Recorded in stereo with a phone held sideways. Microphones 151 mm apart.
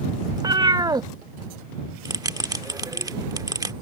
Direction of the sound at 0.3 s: 25° right (ahead or behind).